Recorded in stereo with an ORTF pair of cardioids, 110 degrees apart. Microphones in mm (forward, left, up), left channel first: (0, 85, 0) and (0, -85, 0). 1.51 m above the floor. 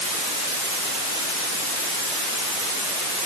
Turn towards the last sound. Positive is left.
No sound to turn to.